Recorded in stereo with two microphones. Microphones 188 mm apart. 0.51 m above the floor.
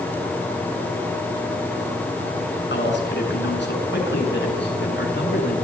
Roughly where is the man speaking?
Left.